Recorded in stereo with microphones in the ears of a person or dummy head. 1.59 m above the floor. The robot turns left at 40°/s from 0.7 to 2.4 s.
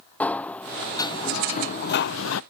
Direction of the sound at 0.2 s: 165° left.